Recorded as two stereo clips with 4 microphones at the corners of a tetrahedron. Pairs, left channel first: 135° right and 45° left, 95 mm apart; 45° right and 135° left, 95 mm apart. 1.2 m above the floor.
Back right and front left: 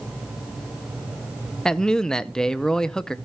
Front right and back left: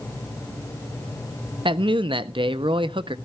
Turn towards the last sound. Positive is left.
turn(degrees=140)